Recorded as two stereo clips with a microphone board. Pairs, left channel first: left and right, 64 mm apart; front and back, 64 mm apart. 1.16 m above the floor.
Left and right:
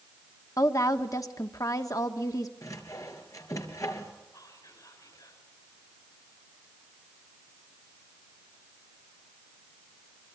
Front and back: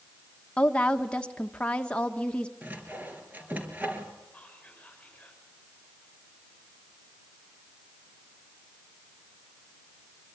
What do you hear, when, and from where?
0.6 s a woman speaking: 70° left, 1.5 m
2.6 s sawing: 115° left, 3.5 m
4.3 s whispering: 75° left, 6 m